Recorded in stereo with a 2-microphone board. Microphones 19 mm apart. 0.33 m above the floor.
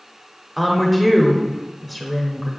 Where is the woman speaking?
5° left (ahead or behind), 0.8 m.